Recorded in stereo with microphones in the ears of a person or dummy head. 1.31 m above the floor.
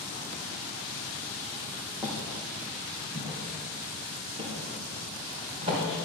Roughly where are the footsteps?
Centre.